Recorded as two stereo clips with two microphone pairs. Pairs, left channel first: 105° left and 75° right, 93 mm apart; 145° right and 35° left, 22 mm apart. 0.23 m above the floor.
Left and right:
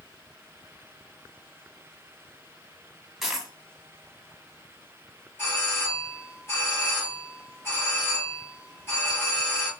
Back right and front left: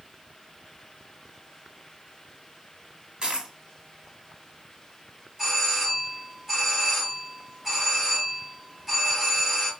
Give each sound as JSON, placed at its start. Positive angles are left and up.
{"t": 3.2, "sound": "a dropped coin", "azimuth_deg": 10, "distance_m": 0.8}
{"t": 5.4, "sound": "a doorbell", "azimuth_deg": 100, "distance_m": 1.9}